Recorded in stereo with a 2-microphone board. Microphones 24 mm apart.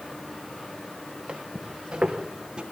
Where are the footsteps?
50° right (ahead or behind), 2 m; by 2.6 s 45° right (ahead or behind), 3 m.